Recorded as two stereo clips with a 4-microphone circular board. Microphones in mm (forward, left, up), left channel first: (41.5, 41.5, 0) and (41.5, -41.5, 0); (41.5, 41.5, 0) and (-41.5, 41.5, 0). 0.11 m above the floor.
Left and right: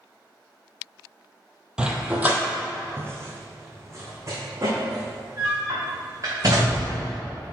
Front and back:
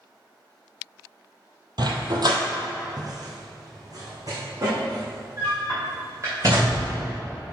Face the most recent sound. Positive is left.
turn(degrees=-135)